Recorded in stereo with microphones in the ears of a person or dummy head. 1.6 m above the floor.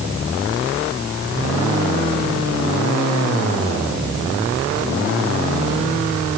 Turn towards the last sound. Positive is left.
No sound to turn to.